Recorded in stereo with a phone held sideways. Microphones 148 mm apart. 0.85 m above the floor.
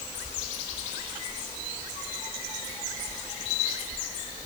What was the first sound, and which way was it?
Only background noise.